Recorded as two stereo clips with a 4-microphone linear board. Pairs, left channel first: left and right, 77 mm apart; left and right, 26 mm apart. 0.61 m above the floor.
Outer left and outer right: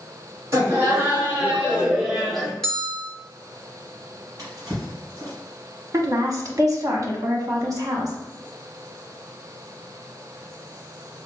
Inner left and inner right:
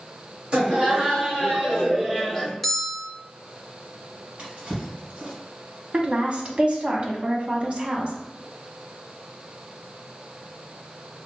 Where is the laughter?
40° right (ahead or behind), 1.9 m; by 2.5 s 5° left (ahead or behind), 1.4 m.